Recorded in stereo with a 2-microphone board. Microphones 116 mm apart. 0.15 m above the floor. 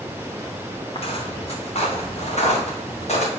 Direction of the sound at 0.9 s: 50° left (ahead or behind).